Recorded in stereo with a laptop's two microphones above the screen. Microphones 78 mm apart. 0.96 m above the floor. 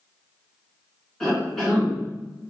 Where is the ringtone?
I don't hear a ringtone.